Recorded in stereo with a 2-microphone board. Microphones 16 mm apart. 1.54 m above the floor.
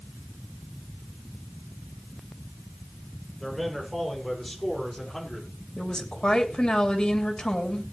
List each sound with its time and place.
3.4 s a man speaking: 5° right (ahead or behind), 6.5 m; by 5.5 s 15° left (ahead or behind), 4.5 m
5.8 s a woman speaking: 65° left (ahead or behind), 3 m